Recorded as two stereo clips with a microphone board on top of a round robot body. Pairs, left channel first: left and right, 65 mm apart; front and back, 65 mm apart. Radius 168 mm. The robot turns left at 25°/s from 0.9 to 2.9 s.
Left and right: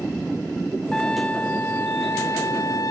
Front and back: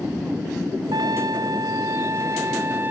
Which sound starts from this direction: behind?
A trumpet, at 0.9 s.